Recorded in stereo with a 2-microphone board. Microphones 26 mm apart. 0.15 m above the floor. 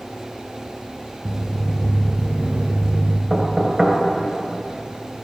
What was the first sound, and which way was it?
Footsteps, centre (ahead or behind).